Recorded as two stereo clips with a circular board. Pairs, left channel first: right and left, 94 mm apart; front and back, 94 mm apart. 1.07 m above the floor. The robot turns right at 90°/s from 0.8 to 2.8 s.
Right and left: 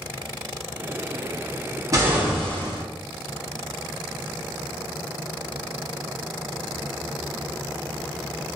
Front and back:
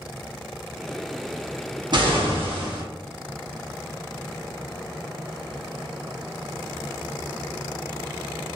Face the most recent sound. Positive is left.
turn(degrees=-140)